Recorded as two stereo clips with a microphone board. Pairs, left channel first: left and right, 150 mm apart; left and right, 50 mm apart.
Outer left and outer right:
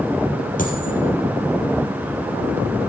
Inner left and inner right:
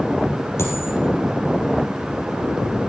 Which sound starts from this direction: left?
A dropped coin, at 0.6 s.